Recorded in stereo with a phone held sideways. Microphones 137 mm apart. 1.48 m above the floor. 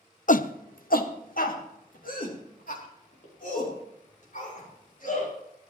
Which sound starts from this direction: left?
A shout, at 0.3 s.